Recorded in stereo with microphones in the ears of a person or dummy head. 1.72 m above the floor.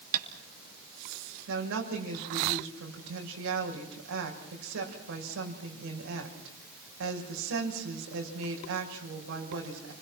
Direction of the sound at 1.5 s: 70° right (ahead or behind).